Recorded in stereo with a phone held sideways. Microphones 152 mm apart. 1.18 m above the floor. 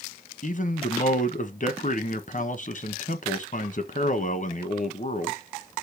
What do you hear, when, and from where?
0.4 s a man speaking: 55° left (ahead or behind), 1.0 m